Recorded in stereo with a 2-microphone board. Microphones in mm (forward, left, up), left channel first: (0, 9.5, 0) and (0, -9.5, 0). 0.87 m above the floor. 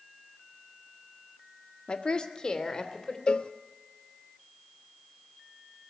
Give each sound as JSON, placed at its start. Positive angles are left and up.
{"t": 1.9, "sound": "a woman speaking", "side_deg": 60, "distance_m": 1.5}
{"t": 3.3, "sound": "a cowbell", "side_deg": 55, "distance_m": 0.7}